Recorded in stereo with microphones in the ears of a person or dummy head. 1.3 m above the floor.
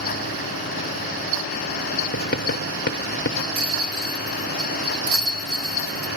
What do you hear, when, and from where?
2.1 s writing: 50° left (ahead or behind), 0.9 m
3.5 s a rattle: 45° right (ahead or behind), 2.5 m